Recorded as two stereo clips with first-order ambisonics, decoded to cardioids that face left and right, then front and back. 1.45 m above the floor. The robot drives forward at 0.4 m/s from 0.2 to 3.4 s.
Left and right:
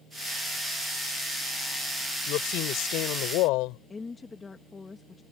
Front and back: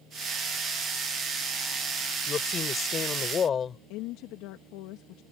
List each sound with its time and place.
2.3 s a woman speaking: 60° left; by 3.8 s 65° left
3.9 s a woman speaking: 10° left